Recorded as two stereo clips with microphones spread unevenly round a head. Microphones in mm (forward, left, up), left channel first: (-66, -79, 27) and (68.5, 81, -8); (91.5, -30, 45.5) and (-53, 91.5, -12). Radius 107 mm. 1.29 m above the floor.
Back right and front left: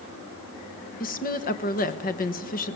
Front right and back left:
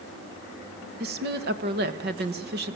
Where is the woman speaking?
175° left, 1.6 m.